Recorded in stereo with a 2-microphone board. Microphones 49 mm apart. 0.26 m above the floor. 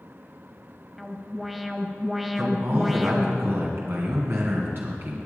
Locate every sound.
1.0 s an alarm: 5° right (ahead or behind), 1.0 m
2.4 s a man speaking: 55° right (ahead or behind), 2.5 m